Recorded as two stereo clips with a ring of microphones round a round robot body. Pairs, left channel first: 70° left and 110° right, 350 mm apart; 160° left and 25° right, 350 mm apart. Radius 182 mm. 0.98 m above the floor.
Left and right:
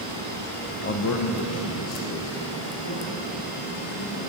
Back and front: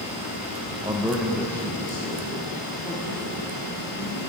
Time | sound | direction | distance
0.8 | a man speaking | 35° left | 0.8 m